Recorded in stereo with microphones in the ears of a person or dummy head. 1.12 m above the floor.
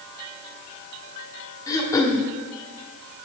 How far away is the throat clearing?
About 1.2 m.